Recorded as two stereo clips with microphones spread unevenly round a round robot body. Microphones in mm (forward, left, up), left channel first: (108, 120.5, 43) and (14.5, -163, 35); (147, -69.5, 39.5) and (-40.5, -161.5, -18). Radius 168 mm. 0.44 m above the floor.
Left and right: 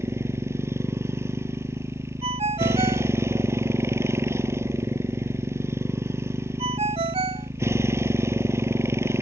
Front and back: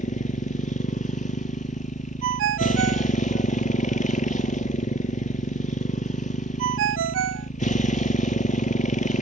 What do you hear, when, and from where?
0.0 s a motorcycle: 25° right
2.2 s a ringtone: straight behind